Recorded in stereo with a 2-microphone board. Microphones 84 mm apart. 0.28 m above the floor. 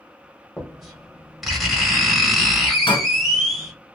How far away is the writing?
About 1.2 m.